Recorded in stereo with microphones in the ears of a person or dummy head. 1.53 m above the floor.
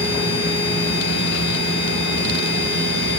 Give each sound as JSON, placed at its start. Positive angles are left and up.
{"t": 0.0, "sound": "a machine running", "side_deg": 75, "distance_m": 5.0}